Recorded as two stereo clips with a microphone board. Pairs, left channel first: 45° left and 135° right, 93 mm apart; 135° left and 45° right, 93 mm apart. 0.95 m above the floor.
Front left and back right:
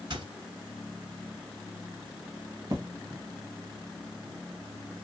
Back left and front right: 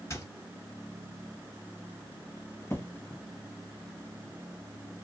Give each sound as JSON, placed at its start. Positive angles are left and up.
{"t": 0.1, "sound": "a squeak", "azimuth_deg": -170, "distance_m": 1.6}
{"t": 2.7, "sound": "an explosion", "azimuth_deg": -170, "distance_m": 1.2}